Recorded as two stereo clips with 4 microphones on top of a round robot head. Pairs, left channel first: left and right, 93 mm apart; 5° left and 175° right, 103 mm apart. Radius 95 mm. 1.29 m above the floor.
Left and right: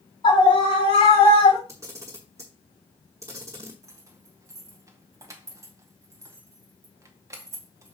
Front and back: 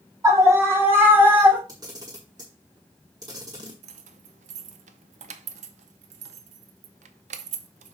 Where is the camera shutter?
140° right, 0.9 m.